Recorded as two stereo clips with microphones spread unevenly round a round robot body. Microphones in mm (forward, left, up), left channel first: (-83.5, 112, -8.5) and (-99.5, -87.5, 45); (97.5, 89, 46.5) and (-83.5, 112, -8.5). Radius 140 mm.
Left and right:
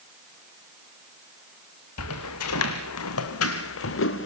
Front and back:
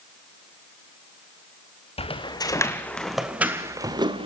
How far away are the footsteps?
About 2 m.